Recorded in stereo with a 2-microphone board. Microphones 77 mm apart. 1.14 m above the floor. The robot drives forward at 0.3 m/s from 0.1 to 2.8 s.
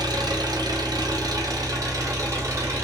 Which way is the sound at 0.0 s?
65° right (ahead or behind).